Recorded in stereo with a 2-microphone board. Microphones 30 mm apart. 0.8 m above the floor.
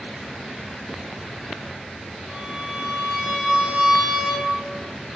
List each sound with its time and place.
2.3 s a violin: 50° right (ahead or behind), 1.0 m